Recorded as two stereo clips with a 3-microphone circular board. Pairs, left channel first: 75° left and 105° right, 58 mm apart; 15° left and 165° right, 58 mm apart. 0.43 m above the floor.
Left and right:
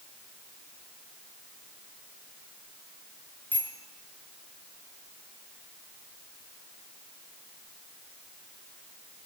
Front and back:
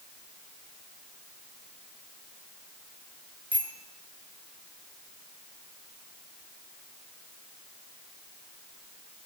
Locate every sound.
3.5 s a bicycle bell: 135° left, 4.5 m